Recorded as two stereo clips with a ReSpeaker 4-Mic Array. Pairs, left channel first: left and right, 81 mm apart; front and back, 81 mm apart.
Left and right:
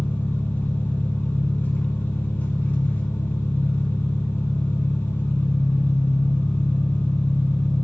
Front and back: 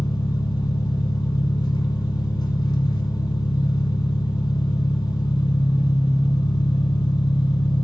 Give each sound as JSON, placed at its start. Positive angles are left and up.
{"t": 0.0, "sound": "an engine running", "azimuth_deg": 25, "distance_m": 1.0}